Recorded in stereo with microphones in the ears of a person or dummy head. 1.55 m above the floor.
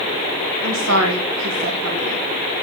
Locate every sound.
0.6 s a woman speaking: 75° right (ahead or behind), 1.5 m; by 2.3 s 65° right (ahead or behind), 3 m